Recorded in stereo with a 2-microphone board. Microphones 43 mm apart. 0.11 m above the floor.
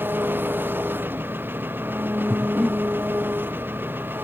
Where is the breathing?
10° right (ahead or behind).